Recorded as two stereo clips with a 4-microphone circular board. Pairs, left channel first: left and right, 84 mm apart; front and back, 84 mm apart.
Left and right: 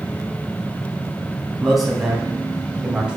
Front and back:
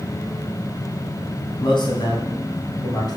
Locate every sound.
1.6 s a man speaking: straight ahead, 3.5 m; by 3.2 s 15° right, 2.5 m